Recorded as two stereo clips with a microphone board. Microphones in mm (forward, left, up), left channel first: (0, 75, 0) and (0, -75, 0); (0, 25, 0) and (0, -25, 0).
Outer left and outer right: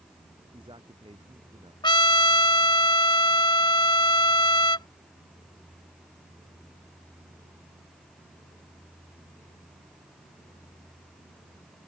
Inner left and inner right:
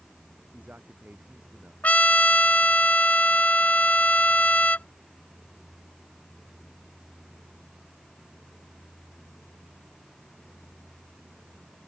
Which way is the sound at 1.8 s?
30° left (ahead or behind).